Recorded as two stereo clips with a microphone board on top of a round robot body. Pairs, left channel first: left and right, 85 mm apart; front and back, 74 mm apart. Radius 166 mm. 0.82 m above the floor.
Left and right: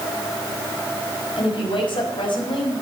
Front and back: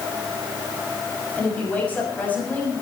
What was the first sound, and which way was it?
A woman speaking, 70° left.